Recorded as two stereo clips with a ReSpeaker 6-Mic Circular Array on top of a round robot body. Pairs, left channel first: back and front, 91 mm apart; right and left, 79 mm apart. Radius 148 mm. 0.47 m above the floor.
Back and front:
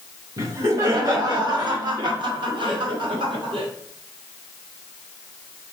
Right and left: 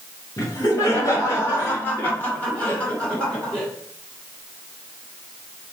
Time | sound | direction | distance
0.4 | laughter | 50° right | 2.5 m